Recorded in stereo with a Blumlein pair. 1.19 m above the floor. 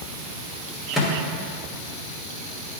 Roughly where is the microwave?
Ahead.